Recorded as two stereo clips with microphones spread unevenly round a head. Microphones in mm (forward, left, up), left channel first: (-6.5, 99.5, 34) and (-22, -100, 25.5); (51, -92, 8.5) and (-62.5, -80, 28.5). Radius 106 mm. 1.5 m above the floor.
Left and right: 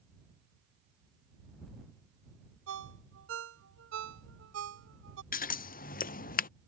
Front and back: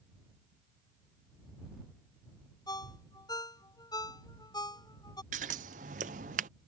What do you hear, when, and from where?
2.7 s a ringtone: 65° right
5.3 s scissors: 135° left